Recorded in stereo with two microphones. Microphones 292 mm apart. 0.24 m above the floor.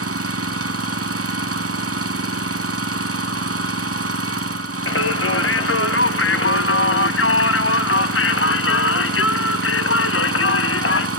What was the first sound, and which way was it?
An engine running, 55° right (ahead or behind).